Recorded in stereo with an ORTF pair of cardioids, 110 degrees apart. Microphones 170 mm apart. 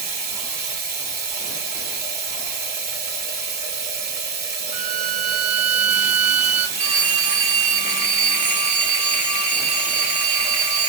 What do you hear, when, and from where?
0.0 s running water: 65° right, 1.1 m
4.7 s a violin: 45° right, 0.8 m
6.8 s a phone ringing: 50° right, 1.4 m